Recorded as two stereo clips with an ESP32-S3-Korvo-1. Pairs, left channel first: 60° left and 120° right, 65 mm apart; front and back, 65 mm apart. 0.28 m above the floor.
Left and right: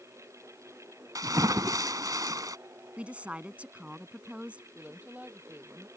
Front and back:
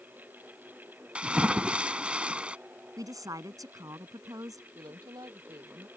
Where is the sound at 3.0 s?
170° left.